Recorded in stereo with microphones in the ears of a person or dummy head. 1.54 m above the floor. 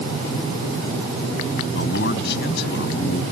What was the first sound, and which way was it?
A man speaking, 65° left (ahead or behind).